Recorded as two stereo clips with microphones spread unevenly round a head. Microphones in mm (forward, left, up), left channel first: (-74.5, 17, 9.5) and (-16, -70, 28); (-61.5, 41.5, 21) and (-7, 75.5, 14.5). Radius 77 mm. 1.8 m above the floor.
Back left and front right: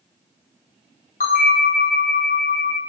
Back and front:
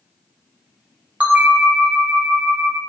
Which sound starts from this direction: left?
A bell, at 1.2 s.